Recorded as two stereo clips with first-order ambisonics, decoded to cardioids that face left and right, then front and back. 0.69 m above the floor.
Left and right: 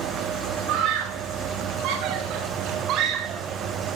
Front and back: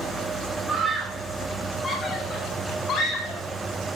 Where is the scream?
100° right, 2.5 m; by 3.4 s 45° right, 4 m.